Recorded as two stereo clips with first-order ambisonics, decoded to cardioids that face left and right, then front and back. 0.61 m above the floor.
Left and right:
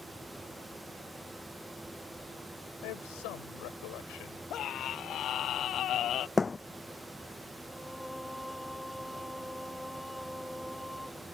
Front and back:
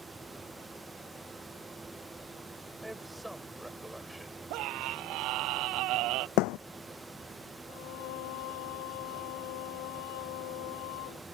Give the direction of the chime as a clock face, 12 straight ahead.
No chime in this recording.